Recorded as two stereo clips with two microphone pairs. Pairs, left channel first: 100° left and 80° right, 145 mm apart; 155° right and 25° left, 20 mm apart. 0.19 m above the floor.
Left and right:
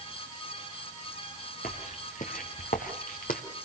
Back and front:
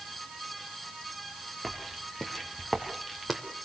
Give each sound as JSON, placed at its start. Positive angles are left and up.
{"t": 1.6, "sound": "footsteps", "azimuth_deg": 130, "distance_m": 4.0}